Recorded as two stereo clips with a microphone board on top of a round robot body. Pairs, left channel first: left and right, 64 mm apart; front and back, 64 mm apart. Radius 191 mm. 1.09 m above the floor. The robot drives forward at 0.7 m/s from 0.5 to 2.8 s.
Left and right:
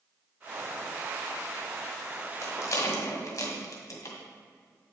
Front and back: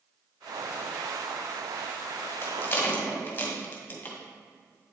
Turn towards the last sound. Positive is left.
turn(degrees=60)